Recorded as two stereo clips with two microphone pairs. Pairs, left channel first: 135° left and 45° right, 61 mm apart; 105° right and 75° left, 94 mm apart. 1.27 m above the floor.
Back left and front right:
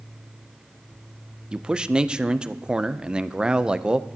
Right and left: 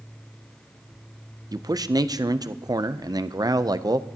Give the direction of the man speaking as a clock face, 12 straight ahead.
11 o'clock.